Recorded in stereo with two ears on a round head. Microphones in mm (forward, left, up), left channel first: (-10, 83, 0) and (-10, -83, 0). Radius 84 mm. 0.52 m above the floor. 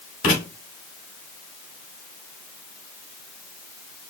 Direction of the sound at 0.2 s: 50° left (ahead or behind).